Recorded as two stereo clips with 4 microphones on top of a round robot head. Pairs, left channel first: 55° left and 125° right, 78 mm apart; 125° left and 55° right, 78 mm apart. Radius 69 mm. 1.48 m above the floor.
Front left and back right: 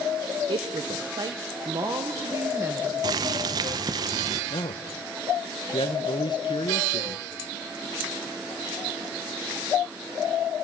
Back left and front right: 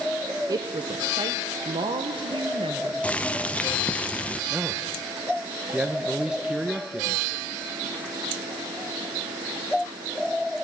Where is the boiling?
165° right, 0.7 m.